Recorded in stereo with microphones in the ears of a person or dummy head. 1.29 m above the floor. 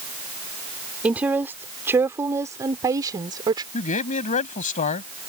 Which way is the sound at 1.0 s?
15° right (ahead or behind).